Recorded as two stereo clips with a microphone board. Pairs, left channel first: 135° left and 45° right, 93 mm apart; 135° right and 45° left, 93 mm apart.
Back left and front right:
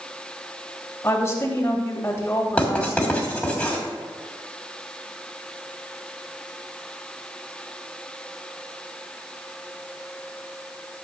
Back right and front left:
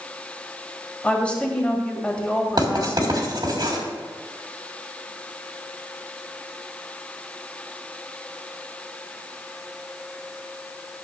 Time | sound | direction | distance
1.0 | a woman speaking | 160° left | 1.7 m
2.6 | writing | 60° left | 2 m